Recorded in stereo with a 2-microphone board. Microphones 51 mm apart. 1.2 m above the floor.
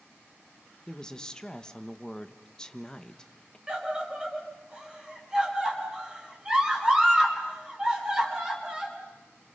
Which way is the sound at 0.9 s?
15° left (ahead or behind).